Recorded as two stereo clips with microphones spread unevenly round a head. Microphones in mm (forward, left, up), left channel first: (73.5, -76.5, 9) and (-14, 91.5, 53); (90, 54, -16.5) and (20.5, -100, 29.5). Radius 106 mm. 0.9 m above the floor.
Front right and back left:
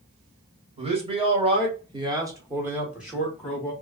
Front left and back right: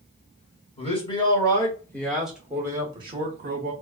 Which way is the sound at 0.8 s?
55° left.